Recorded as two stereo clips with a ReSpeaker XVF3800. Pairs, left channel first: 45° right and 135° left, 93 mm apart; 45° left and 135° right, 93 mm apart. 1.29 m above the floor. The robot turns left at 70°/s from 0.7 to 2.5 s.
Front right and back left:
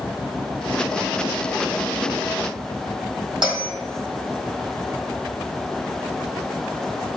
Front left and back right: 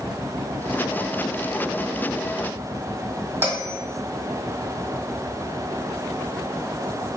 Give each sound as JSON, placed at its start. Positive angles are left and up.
{"t": 3.4, "sound": "a bell", "azimuth_deg": 160, "distance_m": 1.5}